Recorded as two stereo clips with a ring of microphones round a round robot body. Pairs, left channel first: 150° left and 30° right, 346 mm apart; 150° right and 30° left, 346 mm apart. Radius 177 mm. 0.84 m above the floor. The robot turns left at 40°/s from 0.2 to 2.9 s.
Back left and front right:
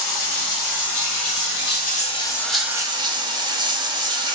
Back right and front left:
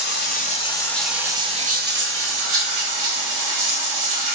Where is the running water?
155° left, 1.0 m; by 4.3 s 45° left, 1.0 m.